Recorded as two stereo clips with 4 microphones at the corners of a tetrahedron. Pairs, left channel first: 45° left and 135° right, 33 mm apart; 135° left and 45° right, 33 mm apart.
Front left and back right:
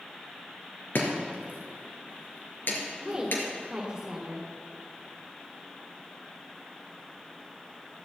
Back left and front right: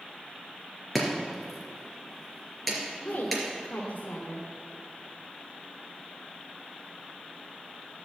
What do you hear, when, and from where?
0.9 s chopping: 45° left, 3 m
3.0 s a woman speaking: 165° left, 1.9 m